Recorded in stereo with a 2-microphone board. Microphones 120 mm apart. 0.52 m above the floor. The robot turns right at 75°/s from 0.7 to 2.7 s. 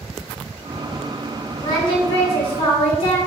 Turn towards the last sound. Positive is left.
turn(degrees=110)